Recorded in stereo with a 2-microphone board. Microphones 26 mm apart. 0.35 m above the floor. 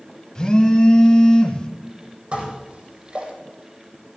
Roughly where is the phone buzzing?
Left.